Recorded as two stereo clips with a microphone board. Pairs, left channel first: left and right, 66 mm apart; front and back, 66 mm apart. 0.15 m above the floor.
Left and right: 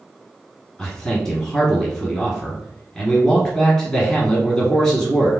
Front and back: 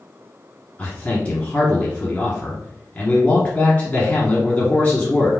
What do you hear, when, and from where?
0.8 s a man speaking: 20° left, 1.6 m